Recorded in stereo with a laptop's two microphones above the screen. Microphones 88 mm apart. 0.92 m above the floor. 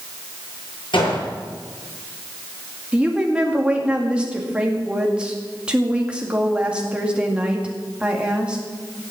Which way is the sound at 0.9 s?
70° left (ahead or behind).